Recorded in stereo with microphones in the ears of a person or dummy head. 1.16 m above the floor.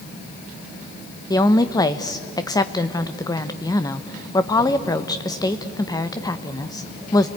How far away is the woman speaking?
About 0.9 m.